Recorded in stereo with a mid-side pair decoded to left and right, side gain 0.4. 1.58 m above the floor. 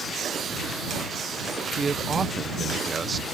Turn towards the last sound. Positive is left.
turn(degrees=-35)